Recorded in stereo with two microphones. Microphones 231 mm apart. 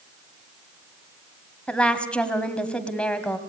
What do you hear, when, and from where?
1.7 s a woman speaking: 5° left (ahead or behind), 2 m